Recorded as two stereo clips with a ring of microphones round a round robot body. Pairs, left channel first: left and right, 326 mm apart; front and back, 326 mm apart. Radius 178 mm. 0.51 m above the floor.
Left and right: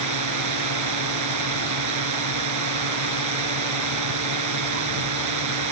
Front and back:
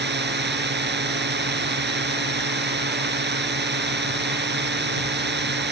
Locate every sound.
0.0 s a drone: 120° right